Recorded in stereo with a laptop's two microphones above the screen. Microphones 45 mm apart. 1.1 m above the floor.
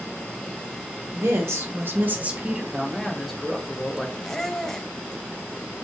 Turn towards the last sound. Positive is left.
turn(degrees=10)  # may be behind; listen again after turning